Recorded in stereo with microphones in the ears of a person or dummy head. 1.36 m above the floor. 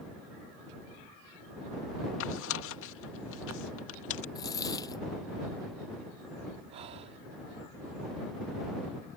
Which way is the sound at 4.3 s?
20° left (ahead or behind).